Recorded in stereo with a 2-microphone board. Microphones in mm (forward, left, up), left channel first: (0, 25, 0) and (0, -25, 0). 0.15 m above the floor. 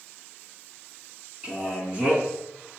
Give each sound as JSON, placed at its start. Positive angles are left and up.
{"t": 1.4, "sound": "a man speaking", "side_deg": -25, "distance_m": 1.1}